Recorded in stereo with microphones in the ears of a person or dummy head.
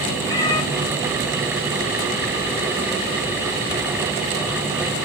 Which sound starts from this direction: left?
A cat meowing, at 0.3 s.